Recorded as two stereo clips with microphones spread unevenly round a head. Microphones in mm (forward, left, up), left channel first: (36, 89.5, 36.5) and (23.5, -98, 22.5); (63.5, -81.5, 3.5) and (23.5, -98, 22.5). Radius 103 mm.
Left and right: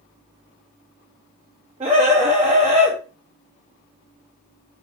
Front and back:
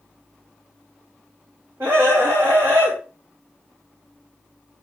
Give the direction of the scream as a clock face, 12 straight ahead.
5 o'clock.